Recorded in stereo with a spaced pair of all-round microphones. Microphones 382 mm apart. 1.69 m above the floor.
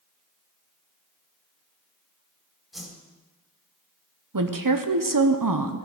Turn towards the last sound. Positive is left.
turn(degrees=-65)  # may be behind; listen again after turning